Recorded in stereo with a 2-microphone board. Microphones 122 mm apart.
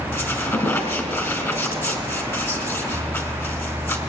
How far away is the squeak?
About 2 m.